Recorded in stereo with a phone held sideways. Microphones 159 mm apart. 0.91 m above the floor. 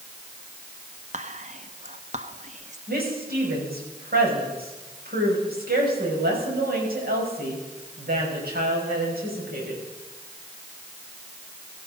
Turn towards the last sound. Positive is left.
turn(degrees=-75)  # may be behind; listen again after turning